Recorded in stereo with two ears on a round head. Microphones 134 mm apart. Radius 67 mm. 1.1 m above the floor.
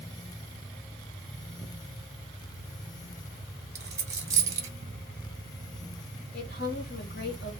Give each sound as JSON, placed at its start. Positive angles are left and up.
{"t": 3.8, "sound": "a dropped coin", "side_deg": -20, "distance_m": 0.9}
{"t": 6.3, "sound": "a woman speaking", "side_deg": 65, "distance_m": 1.1}